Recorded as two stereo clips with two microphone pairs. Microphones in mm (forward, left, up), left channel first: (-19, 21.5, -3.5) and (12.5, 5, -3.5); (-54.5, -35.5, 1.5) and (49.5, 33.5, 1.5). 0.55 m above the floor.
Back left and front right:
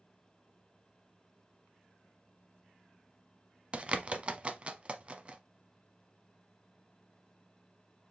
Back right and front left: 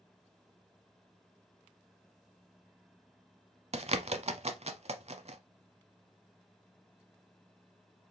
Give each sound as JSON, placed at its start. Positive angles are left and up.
{"t": 3.7, "sound": "a bird", "azimuth_deg": 20, "distance_m": 0.7}